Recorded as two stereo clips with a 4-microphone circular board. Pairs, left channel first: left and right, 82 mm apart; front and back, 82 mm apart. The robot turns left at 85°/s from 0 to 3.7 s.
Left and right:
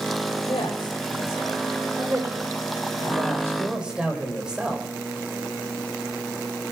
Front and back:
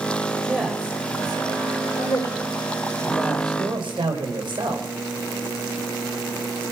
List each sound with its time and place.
0.5 s a man speaking: 105° left, 3.5 m; by 4.9 s 170° right, 3.5 m